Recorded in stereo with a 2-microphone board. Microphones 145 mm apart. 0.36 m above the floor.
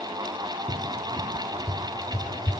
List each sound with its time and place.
0.7 s a cupboard door: 25° right (ahead or behind), 2.5 m